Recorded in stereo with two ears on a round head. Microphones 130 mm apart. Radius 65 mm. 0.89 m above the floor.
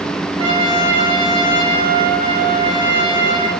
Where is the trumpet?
40° right (ahead or behind), 4 m.